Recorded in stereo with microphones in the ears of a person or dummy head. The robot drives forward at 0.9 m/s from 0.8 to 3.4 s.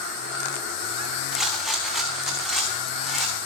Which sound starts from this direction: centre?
A rattle, at 1.3 s.